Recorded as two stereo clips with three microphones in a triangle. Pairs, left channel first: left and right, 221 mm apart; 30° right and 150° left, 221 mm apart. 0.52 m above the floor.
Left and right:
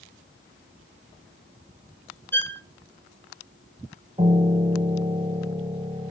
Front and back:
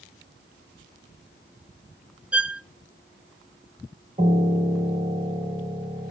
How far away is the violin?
About 0.7 m.